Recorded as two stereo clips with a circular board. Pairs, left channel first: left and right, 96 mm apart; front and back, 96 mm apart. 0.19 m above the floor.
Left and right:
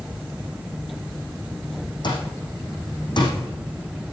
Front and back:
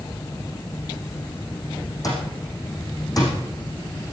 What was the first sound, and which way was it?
An alarm clock, 50° left.